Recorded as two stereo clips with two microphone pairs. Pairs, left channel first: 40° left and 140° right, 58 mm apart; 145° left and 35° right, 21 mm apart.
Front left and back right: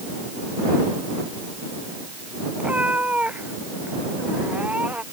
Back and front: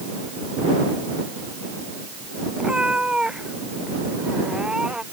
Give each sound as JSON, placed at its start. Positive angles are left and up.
{"t": 2.6, "sound": "a cat meowing", "azimuth_deg": -75}